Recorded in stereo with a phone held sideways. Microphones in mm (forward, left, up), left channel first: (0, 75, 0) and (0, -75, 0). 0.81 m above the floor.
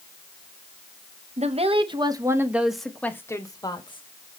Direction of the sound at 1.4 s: 50° right (ahead or behind).